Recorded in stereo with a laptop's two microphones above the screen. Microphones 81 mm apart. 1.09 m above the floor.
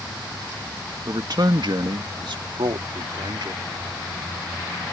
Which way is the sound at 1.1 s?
50° right (ahead or behind).